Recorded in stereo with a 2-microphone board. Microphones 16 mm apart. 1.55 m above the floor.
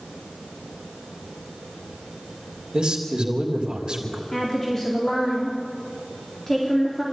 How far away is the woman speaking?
About 4.5 m.